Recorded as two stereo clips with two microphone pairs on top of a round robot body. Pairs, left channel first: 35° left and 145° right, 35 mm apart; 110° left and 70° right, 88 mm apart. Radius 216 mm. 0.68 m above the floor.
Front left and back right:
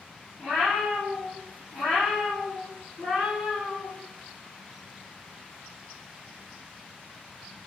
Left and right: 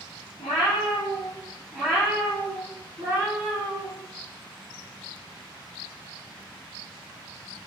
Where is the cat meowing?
125° left, 0.7 m; by 3.9 s 20° right, 1.5 m.